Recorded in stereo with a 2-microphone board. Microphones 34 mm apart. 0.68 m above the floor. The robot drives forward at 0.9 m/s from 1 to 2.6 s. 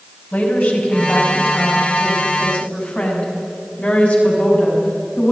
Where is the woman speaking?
55° left (ahead or behind), 5 m; by 5.3 s 45° left (ahead or behind), 5.5 m.